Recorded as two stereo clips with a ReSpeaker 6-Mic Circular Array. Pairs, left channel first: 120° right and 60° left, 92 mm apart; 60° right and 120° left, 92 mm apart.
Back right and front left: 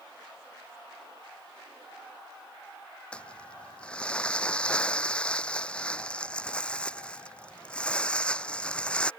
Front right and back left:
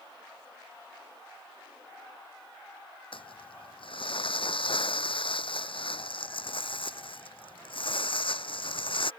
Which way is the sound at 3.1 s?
40° right.